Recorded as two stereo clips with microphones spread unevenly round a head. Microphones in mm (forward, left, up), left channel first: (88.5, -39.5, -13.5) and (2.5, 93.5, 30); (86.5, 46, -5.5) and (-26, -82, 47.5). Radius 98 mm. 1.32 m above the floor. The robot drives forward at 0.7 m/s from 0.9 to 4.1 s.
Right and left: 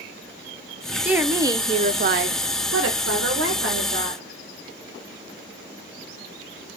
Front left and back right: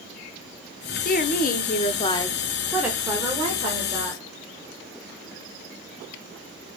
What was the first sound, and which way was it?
A woman speaking, 35° left.